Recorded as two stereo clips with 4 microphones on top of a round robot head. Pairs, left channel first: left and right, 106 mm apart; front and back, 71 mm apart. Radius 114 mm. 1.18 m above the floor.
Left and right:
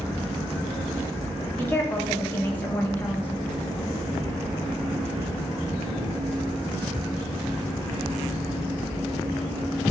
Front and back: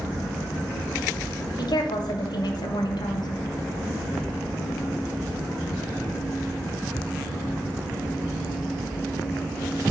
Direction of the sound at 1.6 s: 15° left.